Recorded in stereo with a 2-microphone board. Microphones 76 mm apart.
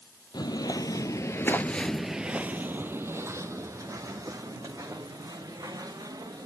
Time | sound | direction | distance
0.3 | footsteps | 65° left (ahead or behind) | 0.9 m